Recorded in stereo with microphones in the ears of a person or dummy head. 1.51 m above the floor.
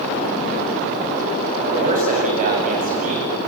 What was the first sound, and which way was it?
A man speaking, 45° right (ahead or behind).